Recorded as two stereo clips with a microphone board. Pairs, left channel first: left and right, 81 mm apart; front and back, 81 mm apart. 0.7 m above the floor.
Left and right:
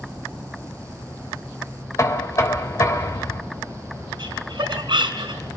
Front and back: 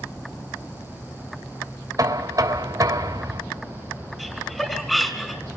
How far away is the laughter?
About 3.5 m.